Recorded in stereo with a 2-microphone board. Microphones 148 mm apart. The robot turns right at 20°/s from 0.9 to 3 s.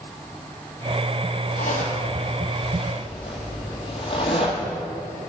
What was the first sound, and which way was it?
A zipper, 65° left (ahead or behind).